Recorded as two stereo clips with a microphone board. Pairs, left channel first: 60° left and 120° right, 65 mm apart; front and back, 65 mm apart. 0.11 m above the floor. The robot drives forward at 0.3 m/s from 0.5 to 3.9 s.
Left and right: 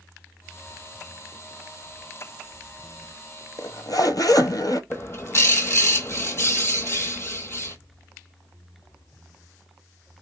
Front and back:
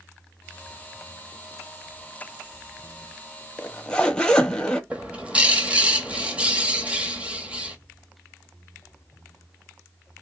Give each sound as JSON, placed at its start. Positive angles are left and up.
{"t": 3.6, "sound": "a zipper", "azimuth_deg": 65, "distance_m": 0.5}
{"t": 4.9, "sound": "a bird", "azimuth_deg": 110, "distance_m": 0.7}